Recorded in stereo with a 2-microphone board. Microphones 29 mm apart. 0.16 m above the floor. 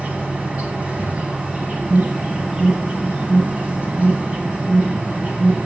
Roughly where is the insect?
Right.